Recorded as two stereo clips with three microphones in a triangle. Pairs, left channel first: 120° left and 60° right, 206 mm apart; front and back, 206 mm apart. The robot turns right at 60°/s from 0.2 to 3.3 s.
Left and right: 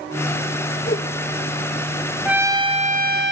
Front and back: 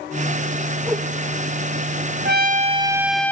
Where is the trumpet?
145° right, 0.7 m; by 3.3 s 80° right, 0.7 m.